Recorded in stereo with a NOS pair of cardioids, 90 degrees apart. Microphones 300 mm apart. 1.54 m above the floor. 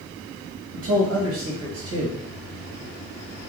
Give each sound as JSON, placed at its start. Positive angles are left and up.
{"t": 0.7, "sound": "a man speaking", "azimuth_deg": -55, "distance_m": 1.2}